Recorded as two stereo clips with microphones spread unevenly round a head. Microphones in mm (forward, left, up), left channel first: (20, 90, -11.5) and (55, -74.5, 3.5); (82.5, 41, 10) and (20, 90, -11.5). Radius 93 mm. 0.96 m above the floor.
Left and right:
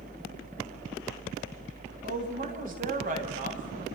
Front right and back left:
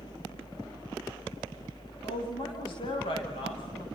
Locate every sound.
0.0 s a fan: 75° right, 1.0 m
2.0 s a woman speaking: 35° right, 7.5 m